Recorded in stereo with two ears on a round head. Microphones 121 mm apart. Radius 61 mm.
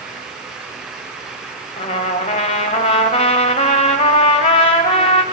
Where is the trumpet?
50° left (ahead or behind), 3 m.